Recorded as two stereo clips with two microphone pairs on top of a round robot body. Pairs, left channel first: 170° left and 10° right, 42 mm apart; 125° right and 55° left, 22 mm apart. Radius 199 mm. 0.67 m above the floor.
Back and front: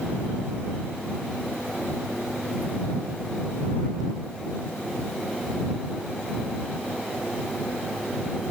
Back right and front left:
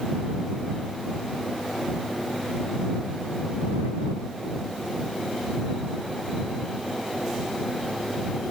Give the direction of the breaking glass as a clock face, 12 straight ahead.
No breaking glass in this recording.